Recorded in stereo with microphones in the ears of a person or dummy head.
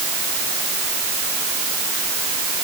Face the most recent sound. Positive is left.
No sound to turn to.